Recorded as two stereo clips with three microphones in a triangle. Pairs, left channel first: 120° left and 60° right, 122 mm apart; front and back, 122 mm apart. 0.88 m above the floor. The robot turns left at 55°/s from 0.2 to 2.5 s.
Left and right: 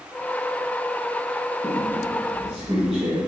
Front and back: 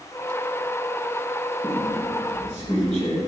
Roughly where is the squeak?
Ahead left.